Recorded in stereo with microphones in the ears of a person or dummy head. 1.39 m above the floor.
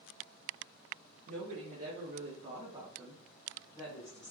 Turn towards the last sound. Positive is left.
turn(degrees=35)  # may be behind; listen again after turning